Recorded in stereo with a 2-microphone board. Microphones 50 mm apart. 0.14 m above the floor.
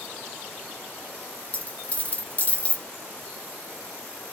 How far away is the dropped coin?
About 0.9 m.